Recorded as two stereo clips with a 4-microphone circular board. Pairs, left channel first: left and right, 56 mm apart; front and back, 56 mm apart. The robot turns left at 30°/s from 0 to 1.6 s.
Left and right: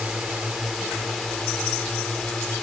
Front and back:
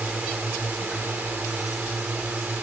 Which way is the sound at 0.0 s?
145° right.